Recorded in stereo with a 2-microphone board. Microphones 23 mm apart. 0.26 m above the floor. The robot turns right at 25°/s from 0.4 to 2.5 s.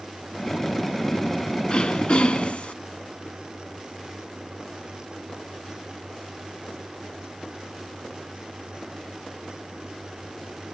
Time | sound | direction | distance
1.7 | throat clearing | 45° left (ahead or behind) | 0.5 m